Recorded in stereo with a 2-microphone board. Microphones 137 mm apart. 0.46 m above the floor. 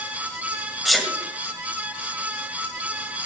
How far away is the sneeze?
About 1.9 m.